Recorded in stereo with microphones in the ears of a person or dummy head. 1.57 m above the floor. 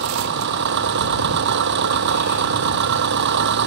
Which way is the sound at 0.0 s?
60° right (ahead or behind).